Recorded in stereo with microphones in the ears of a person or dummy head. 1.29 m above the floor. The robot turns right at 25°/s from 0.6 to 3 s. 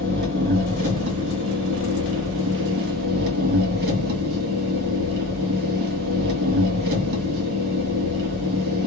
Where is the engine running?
125° right, 2 m; by 8.9 s 65° right, 2 m.